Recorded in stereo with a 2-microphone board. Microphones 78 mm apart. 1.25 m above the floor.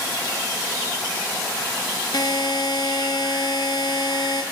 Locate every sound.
2.1 s a buzzer: 80° left, 2.5 m